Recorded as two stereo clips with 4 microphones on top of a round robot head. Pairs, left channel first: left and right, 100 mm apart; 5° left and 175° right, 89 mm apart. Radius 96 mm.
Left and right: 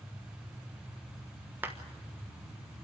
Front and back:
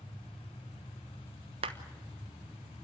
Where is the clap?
165° right, 1.1 m.